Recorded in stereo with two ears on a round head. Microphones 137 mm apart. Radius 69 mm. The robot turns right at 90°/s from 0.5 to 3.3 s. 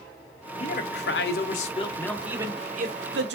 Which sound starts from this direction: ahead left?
A man speaking, at 0.6 s.